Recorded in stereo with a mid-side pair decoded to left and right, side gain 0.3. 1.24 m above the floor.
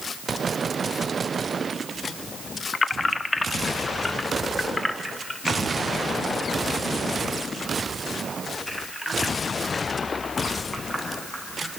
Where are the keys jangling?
50° left, 1.1 m; by 11.7 s 5° left, 8 m.